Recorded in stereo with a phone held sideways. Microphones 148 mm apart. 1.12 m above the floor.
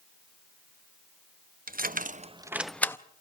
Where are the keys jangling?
75° right (ahead or behind), 0.9 m; by 3.0 s 15° left (ahead or behind), 0.8 m.